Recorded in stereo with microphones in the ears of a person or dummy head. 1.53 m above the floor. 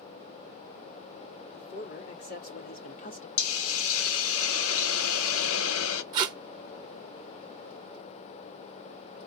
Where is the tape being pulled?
25° right (ahead or behind), 0.9 m.